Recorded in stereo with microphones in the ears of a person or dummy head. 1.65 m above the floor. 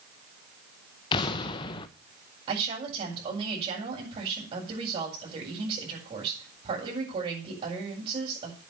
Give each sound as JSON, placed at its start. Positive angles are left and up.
{"t": 1.1, "sound": "an explosion", "side_deg": 30, "distance_m": 1.2}
{"t": 2.5, "sound": "a woman speaking", "side_deg": -30, "distance_m": 7.5}